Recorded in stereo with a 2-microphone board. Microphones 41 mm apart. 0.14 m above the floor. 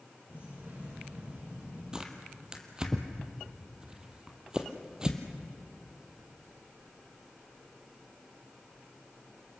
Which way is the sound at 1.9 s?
20° right (ahead or behind).